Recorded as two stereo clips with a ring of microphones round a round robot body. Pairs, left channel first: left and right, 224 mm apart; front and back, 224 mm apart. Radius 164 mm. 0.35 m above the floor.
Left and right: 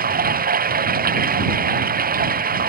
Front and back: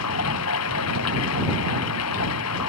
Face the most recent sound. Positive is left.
turn(degrees=-40)